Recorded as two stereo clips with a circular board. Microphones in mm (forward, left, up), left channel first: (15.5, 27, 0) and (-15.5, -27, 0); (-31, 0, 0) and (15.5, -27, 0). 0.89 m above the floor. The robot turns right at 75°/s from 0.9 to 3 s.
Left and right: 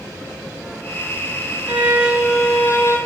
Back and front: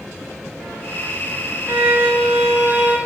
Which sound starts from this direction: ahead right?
A violin, at 1.7 s.